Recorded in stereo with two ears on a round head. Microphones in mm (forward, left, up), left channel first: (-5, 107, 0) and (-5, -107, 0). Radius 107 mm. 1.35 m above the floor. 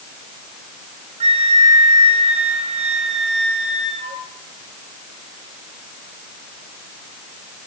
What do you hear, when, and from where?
1.2 s a flute: 30° right (ahead or behind), 2.5 m